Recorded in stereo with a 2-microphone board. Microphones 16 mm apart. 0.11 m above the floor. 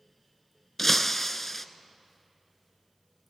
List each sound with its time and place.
0.8 s breaking glass: 15° left (ahead or behind), 0.9 m